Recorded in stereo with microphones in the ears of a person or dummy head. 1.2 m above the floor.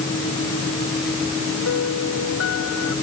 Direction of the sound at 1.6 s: 70° left (ahead or behind).